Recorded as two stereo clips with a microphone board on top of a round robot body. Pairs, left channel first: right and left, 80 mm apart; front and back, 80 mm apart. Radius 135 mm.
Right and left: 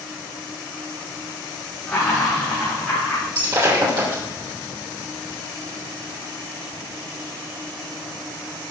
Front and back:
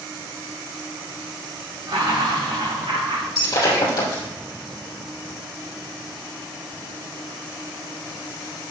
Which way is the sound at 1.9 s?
155° right.